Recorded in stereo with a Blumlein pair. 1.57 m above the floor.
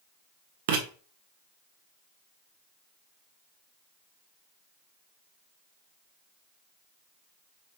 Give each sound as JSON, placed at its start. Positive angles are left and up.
{"t": 0.7, "sound": "writing", "azimuth_deg": -50, "distance_m": 1.0}